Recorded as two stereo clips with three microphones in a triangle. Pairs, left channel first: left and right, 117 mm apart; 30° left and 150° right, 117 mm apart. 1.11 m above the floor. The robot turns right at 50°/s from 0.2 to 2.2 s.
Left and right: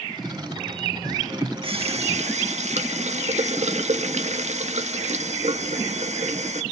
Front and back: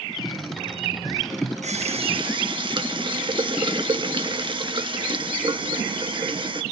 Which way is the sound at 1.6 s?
130° right.